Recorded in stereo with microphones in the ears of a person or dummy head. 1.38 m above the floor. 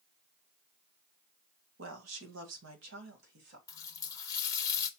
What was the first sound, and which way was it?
A woman speaking, 80° right.